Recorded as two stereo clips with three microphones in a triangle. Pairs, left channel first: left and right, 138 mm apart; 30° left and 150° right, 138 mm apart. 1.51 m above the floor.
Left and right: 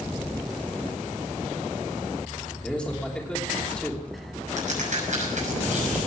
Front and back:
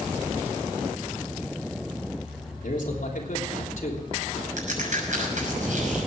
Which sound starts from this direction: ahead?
A man speaking, at 2.6 s.